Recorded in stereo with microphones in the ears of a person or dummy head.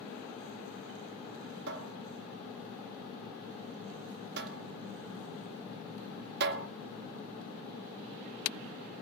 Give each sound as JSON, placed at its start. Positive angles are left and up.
{"t": 1.7, "sound": "a cupboard door", "side_deg": -60, "distance_m": 2.0}